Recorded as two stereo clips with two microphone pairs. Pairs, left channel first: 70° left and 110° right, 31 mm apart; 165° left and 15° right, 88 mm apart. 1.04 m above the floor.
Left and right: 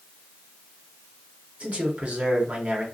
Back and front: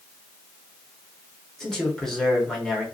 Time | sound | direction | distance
1.6 | a man speaking | 115° right | 0.9 m